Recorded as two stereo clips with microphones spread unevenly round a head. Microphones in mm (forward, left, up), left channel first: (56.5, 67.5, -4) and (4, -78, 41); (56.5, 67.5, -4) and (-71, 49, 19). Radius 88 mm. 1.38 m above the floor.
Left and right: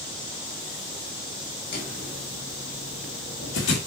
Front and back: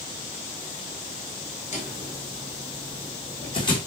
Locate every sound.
1.7 s footsteps: 45° left, 5 m; by 3.8 s 65° left, 4.5 m